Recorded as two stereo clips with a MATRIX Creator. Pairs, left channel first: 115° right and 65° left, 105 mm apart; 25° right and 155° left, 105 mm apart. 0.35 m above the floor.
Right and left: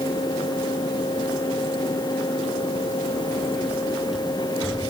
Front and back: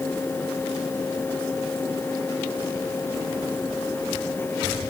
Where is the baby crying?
No baby crying in this recording.